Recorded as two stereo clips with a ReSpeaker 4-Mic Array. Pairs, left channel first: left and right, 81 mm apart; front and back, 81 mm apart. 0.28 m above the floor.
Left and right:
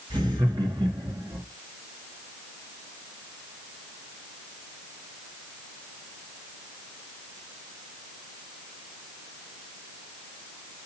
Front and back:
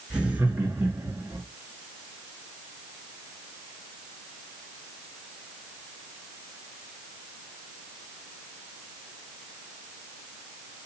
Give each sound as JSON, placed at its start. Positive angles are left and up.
{"t": 0.1, "sound": "laughter", "azimuth_deg": -105, "distance_m": 4.5}